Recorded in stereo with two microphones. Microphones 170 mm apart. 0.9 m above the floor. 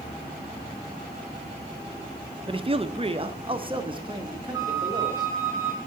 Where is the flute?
20° right (ahead or behind), 1.2 m.